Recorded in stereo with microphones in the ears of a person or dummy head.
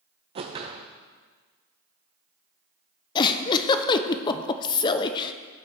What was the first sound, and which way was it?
A whoosh, 25° right (ahead or behind).